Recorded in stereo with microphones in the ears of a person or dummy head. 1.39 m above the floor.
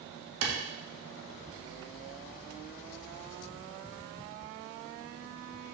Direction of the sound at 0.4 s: 75° right (ahead or behind).